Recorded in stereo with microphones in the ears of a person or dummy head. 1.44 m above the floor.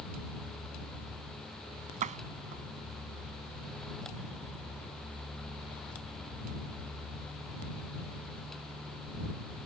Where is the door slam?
45° right (ahead or behind).